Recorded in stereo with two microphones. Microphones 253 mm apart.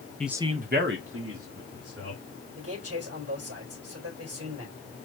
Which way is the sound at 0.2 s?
5° left (ahead or behind).